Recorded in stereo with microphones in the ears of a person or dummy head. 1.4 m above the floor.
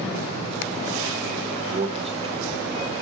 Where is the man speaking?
35° right (ahead or behind), 1.0 m; by 2.9 s 20° right (ahead or behind), 1.8 m.